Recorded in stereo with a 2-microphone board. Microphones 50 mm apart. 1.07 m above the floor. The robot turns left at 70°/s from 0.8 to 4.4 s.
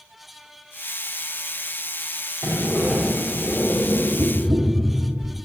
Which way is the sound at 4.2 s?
50° right (ahead or behind).